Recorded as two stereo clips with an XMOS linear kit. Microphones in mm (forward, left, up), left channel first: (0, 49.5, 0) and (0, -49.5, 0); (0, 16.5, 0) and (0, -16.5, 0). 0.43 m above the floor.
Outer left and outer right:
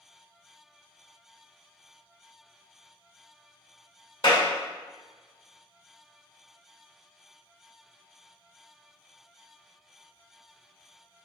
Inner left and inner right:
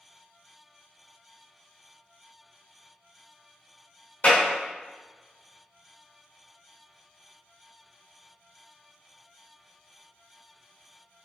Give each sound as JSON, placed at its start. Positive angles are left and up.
{"t": 4.2, "sound": "a clap", "side_deg": 45, "distance_m": 1.5}